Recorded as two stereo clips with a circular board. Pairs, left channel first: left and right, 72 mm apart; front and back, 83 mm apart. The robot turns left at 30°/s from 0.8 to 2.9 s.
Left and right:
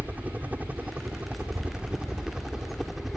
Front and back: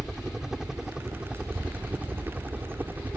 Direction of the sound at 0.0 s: 105° right.